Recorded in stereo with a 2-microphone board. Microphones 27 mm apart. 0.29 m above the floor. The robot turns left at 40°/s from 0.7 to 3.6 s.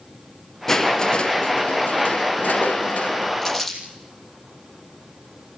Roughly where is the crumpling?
Centre.